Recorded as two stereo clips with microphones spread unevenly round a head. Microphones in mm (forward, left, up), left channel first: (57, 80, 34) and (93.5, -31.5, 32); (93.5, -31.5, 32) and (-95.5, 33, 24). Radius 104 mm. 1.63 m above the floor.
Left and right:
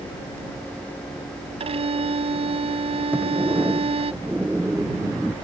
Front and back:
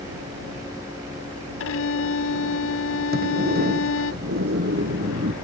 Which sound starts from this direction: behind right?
A sliding door, at 3.1 s.